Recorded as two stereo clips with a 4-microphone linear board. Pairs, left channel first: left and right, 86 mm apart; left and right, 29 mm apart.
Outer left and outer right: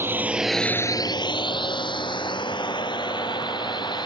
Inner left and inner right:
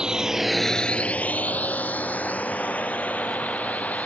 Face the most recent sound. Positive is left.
turn(degrees=60)  # may be behind; listen again after turning